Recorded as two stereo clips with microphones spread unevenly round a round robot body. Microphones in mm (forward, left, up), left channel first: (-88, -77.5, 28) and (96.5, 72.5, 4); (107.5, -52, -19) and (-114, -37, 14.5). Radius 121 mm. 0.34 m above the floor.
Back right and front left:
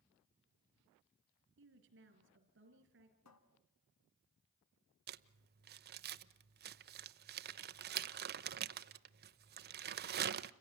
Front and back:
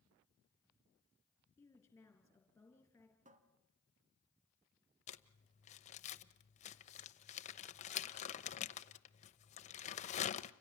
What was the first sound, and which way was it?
A woman speaking, 75° left.